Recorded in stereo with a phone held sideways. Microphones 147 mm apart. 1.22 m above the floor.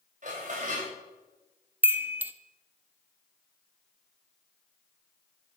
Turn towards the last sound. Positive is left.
turn(degrees=-10)  # may be behind; listen again after turning